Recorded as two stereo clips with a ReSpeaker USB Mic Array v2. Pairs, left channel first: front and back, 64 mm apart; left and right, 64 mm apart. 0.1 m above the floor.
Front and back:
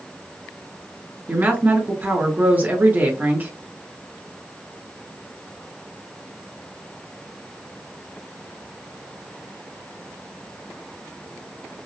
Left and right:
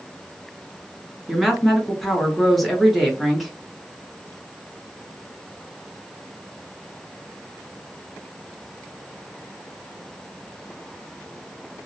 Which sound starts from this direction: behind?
A woman speaking, at 1.3 s.